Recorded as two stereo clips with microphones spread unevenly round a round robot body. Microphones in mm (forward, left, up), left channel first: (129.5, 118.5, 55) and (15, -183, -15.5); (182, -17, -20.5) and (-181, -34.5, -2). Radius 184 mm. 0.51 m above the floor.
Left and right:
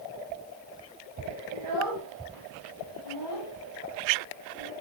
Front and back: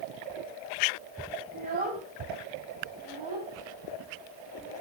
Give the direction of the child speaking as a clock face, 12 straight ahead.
4 o'clock.